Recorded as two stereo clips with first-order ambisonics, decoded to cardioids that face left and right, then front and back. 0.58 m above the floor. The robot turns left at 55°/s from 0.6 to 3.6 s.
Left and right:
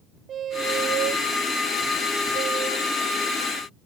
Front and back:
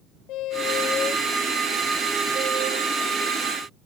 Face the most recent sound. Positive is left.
turn(degrees=160)